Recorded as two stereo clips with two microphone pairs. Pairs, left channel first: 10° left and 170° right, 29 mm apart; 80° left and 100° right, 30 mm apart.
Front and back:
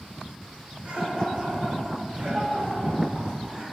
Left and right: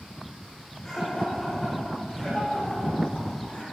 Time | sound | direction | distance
0.8 | laughter | 145° left | 4.5 m